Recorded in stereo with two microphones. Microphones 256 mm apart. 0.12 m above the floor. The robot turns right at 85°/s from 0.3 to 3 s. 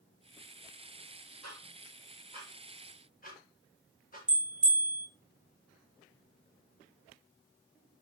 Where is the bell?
60° right (ahead or behind), 1.2 m.